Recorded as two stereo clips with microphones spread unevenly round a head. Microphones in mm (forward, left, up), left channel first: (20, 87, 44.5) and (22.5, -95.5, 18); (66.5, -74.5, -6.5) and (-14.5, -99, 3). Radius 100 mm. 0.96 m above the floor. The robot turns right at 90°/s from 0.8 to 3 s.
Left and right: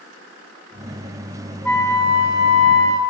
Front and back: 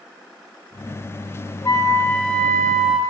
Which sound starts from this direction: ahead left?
A flute, at 1.6 s.